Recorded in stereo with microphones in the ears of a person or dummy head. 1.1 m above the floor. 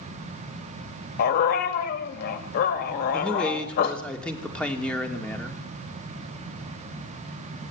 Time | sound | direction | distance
1.2 | a dog barking | 60° left (ahead or behind) | 2 m
3.1 | a man speaking | 5° left (ahead or behind) | 3 m